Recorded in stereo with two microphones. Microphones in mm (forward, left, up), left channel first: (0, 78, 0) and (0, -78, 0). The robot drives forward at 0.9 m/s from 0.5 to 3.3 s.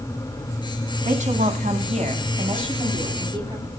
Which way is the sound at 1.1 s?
50° right (ahead or behind).